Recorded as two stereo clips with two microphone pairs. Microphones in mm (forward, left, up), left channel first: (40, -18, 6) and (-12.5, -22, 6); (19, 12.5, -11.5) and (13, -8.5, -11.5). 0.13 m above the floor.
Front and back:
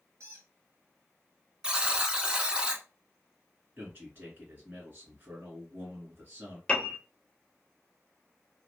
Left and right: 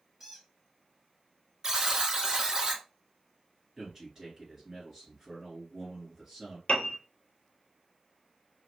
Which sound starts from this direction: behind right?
A buzzer, at 1.6 s.